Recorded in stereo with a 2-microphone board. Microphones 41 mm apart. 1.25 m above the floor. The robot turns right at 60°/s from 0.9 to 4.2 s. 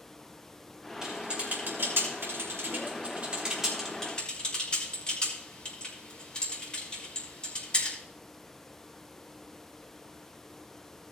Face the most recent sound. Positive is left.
turn(degrees=25)  # may be behind; listen again after turning